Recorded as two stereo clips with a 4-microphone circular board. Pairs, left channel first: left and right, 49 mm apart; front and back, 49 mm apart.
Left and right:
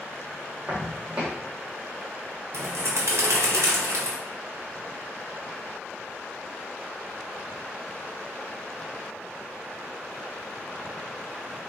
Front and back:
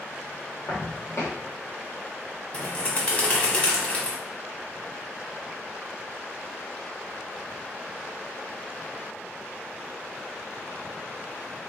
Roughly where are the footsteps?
Ahead.